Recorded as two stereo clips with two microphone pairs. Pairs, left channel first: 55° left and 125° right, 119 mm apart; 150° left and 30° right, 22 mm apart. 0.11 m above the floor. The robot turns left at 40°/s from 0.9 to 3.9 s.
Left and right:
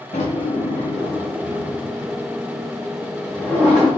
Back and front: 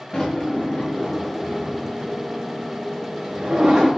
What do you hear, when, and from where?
0.1 s a drawer: 75° left, 3.5 m; by 3.9 s 45° right, 3.5 m